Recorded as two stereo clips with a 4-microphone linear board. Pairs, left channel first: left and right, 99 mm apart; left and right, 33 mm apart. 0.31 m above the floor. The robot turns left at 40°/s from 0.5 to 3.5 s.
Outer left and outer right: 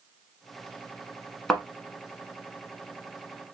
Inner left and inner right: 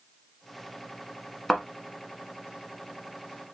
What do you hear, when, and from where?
1.5 s a thud: 5° left (ahead or behind), 1.1 m; by 1.6 s centre (ahead or behind), 1.1 m